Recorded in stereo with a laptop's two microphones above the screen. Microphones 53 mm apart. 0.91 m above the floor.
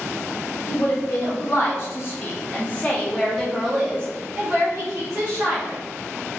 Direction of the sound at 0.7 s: 55° left (ahead or behind).